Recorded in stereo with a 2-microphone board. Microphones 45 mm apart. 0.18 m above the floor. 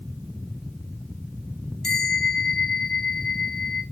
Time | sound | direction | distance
1.8 | a bell | 5° left (ahead or behind) | 1.5 m